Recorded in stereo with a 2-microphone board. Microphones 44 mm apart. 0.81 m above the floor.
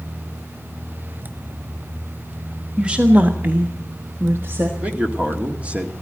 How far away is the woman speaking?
About 1.5 m.